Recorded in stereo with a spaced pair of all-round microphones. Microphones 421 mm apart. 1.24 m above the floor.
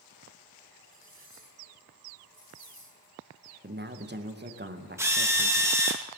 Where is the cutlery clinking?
80° left, 3.5 m.